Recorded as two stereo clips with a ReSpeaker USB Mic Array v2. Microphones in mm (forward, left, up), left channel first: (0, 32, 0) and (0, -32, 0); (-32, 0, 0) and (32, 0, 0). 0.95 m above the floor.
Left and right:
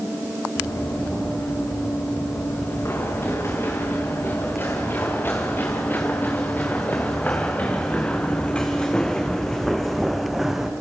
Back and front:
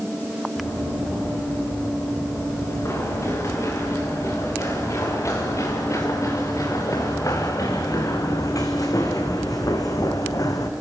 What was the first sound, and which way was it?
Running footsteps, 135° left.